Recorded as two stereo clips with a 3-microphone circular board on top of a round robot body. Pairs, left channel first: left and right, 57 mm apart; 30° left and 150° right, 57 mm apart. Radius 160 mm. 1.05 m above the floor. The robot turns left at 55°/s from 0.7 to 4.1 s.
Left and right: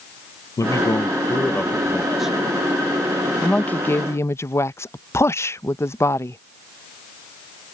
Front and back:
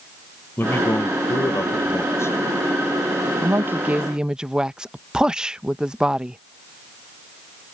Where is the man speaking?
80° left; by 2.4 s 15° right.